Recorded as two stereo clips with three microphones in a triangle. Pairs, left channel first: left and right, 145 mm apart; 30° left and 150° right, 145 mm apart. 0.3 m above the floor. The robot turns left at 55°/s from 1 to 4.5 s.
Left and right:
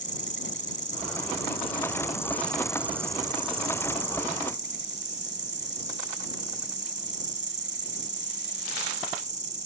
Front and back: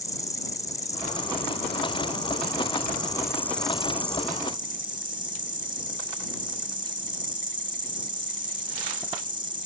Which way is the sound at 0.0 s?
90° left.